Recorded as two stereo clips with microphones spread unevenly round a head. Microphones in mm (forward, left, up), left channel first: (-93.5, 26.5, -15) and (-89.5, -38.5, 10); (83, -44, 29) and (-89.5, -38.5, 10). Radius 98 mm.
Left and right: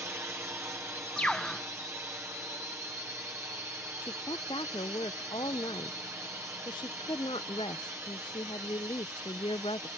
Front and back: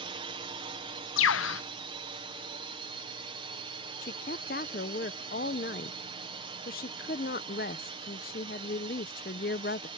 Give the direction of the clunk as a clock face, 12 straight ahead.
I don't hear a clunk.